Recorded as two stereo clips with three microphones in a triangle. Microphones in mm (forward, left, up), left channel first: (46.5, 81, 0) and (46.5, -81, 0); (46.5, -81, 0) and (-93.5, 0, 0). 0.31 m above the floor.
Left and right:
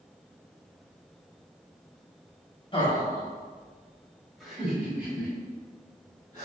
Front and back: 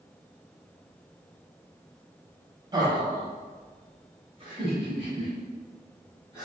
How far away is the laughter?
About 1.6 m.